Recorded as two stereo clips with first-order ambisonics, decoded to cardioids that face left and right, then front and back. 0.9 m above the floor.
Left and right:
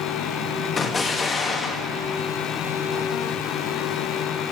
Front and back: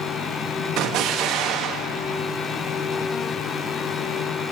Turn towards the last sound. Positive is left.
turn(degrees=160)